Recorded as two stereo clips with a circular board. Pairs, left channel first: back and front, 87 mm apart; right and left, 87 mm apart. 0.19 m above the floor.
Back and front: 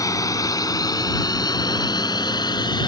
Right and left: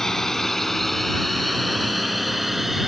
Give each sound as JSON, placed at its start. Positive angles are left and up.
{"t": 0.0, "sound": "a drone", "azimuth_deg": -170}